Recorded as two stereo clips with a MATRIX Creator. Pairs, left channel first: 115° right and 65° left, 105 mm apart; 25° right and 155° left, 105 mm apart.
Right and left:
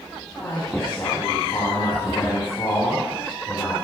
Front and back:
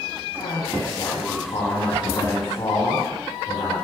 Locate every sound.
0.4 s a man speaking: 60° right, 4 m